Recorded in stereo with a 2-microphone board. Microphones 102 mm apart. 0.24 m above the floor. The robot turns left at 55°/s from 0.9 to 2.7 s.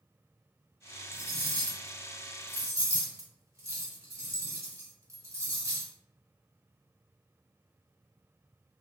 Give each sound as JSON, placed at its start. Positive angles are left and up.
{"t": 1.1, "sound": "cutlery clinking", "side_deg": 25, "distance_m": 0.9}